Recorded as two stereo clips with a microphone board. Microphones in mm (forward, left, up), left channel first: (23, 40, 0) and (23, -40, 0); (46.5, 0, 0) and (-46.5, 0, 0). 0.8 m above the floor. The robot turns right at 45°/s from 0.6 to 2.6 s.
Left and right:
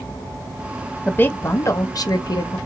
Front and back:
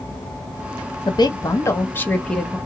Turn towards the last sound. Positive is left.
turn(degrees=90)